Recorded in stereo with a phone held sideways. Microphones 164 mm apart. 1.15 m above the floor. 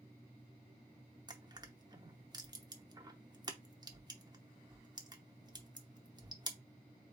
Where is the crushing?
25° right (ahead or behind), 0.7 m.